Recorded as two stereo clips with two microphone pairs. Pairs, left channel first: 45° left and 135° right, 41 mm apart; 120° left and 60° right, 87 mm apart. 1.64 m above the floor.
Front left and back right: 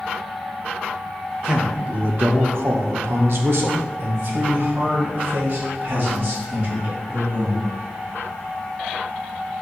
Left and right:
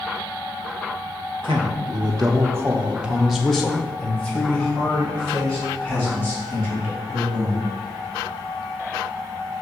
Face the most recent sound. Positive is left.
turn(degrees=175)